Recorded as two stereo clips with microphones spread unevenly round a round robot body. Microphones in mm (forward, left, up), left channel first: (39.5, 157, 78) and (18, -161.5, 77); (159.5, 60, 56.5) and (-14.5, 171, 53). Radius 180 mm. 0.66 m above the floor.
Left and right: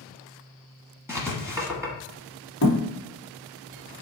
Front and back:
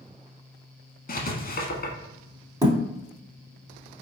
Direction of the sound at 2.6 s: 85° left.